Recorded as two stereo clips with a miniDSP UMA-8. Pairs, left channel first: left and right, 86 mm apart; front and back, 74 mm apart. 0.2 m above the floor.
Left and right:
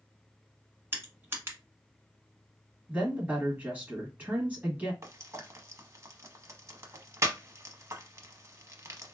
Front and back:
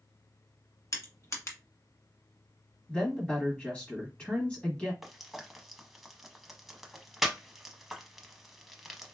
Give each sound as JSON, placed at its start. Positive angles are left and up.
{"t": 0.9, "sound": "crushing", "azimuth_deg": -35, "distance_m": 1.1}
{"t": 2.9, "sound": "a woman speaking", "azimuth_deg": -55, "distance_m": 1.1}
{"t": 5.0, "sound": "frying", "azimuth_deg": -95, "distance_m": 0.6}